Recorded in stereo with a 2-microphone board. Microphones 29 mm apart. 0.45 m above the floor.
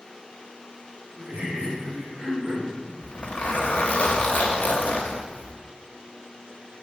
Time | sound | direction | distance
1.2 | laughter | 50° right (ahead or behind) | 2.5 m
3.0 | a zipper | 70° left (ahead or behind) | 0.9 m